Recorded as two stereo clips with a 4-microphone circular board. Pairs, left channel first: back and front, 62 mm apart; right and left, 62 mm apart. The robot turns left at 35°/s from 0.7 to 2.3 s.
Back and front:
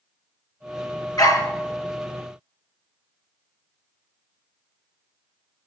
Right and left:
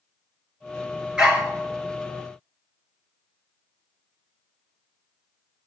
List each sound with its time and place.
1.2 s a dog barking: 165° left, 2.5 m; by 1.5 s 155° left, 2.5 m